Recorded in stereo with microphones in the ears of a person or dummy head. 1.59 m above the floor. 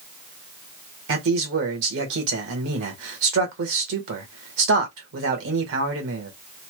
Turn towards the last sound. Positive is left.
turn(degrees=-70)  # may be behind; listen again after turning